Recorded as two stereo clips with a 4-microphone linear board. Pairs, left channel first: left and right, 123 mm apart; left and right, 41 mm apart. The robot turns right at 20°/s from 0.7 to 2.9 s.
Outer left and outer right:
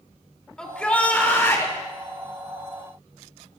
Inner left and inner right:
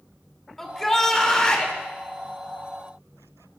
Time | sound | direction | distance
0.6 | a shout | 5° left (ahead or behind) | 2 m